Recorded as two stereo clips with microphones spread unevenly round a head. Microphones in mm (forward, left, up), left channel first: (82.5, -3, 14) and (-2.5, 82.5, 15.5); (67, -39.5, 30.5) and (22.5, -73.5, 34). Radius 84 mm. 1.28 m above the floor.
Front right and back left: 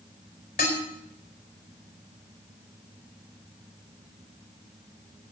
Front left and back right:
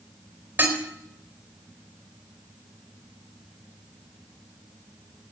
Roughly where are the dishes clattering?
Right.